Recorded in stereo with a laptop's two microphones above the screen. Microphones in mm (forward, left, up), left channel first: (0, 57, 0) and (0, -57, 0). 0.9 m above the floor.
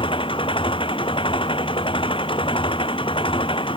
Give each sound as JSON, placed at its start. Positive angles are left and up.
{"t": 0.0, "sound": "an engine running", "side_deg": 45}